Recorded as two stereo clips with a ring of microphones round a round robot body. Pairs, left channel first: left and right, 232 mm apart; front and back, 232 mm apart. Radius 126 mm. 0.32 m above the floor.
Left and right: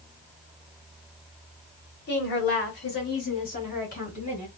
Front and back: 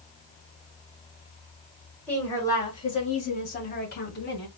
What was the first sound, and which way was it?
A woman speaking, 80° left.